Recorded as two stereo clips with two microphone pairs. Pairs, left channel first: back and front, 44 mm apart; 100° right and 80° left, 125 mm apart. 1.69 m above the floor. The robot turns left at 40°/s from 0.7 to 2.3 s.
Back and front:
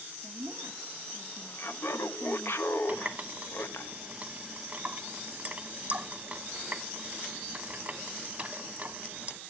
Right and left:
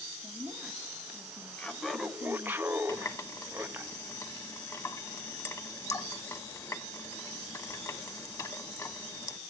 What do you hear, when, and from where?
0.2 s a woman speaking: 5° right, 4 m; by 2.6 s 70° right, 4 m
1.6 s laughter: 175° right, 1.3 m; by 3.9 s 155° left, 1.3 m
2.9 s a running tap: 45° right, 1.3 m